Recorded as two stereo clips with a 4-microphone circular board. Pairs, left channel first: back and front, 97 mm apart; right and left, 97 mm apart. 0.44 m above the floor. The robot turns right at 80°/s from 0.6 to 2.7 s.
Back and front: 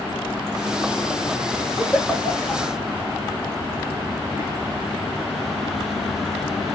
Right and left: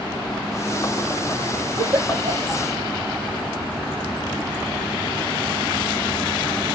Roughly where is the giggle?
Left.